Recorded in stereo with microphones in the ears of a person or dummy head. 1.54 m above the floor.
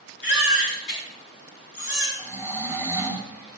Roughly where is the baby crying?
Left.